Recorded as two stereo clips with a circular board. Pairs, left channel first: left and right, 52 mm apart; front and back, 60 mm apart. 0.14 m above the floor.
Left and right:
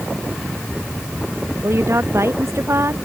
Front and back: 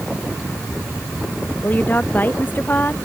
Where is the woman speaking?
60° right.